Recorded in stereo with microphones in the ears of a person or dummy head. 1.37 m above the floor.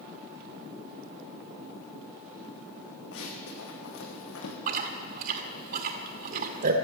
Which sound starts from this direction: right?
Chewing, at 4.7 s.